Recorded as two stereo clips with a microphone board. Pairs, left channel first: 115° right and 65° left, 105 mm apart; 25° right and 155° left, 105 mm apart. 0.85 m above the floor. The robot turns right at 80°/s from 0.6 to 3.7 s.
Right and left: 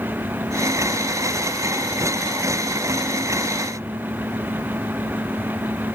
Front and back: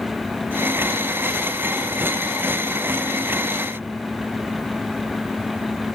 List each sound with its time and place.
Only background noise.